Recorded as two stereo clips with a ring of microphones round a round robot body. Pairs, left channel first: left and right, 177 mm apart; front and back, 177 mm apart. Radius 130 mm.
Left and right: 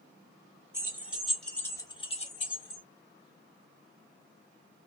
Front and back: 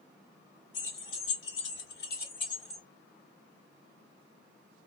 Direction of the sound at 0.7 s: 15° right.